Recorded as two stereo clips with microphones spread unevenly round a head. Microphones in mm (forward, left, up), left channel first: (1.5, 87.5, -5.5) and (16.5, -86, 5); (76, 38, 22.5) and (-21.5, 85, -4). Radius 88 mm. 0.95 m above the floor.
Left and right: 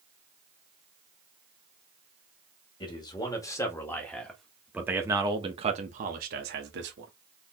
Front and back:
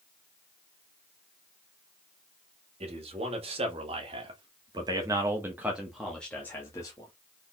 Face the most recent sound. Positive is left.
turn(degrees=-95)